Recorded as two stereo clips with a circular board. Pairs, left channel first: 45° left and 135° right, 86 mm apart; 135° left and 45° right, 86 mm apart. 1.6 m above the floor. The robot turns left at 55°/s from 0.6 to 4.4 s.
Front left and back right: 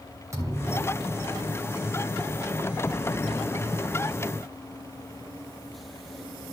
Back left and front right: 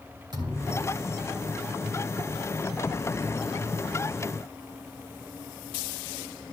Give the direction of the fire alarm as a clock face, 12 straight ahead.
I don't hear a fire alarm.